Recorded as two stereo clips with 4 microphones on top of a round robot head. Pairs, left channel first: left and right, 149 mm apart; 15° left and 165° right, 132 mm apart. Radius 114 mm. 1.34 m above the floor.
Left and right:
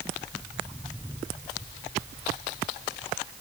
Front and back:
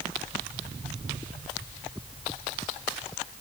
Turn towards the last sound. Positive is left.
No sound to turn to.